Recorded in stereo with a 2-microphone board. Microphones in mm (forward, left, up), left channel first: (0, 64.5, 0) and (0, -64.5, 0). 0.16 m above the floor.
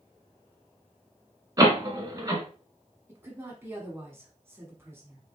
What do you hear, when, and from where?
1.6 s a door slam: 30° right (ahead or behind), 1.0 m
3.1 s a woman speaking: 20° right (ahead or behind), 1.3 m